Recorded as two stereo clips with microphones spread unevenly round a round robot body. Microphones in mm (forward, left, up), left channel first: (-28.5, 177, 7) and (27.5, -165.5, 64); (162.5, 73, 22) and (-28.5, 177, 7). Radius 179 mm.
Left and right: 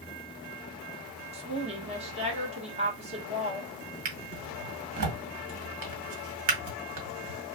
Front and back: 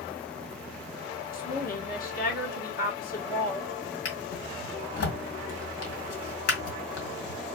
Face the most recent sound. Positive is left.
turn(degrees=-35)